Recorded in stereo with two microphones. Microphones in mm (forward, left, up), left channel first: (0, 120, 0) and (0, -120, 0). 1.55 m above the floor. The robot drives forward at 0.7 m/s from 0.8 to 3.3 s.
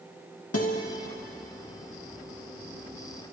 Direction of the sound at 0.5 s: 75° left (ahead or behind).